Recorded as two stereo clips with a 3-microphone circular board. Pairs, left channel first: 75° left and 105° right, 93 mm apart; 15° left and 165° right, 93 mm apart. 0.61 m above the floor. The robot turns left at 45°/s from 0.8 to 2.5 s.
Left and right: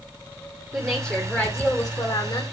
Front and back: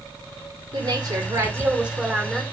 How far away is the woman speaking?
About 2 m.